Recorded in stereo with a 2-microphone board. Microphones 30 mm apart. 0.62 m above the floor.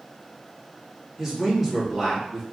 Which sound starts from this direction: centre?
A man speaking, at 1.2 s.